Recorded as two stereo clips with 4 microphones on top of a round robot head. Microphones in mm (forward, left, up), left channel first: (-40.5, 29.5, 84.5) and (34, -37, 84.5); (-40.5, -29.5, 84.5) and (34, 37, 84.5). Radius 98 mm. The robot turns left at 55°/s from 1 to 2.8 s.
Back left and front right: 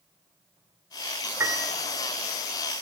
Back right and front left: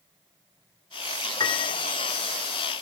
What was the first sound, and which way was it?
A piano, 100° right.